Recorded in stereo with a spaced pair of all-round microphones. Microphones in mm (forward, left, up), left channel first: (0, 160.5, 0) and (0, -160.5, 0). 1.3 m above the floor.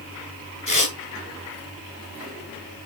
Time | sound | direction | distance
0.7 | tearing paper | 70° left (ahead or behind) | 4 m